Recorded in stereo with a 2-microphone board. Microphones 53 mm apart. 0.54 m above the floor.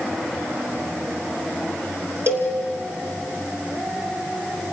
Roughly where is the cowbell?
Right.